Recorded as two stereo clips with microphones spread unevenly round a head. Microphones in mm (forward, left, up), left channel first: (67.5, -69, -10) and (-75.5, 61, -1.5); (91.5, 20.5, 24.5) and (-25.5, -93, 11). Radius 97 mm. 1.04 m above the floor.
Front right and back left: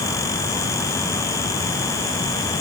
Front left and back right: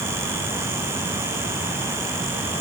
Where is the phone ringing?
I don't hear a phone ringing.